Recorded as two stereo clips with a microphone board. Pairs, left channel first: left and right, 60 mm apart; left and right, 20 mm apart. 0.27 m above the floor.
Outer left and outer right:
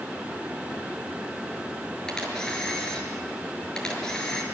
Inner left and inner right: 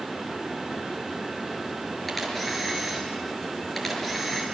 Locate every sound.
2.1 s a camera shutter: 10° left (ahead or behind), 6 m